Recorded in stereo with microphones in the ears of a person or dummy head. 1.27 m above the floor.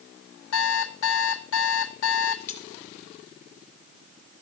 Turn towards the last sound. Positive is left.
turn(degrees=45)  # may be behind; listen again after turning